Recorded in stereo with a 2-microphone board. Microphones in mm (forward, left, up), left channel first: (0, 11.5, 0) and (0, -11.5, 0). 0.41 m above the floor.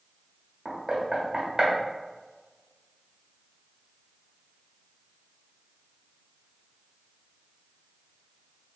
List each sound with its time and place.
0.7 s knocking: 35° right (ahead or behind), 1.2 m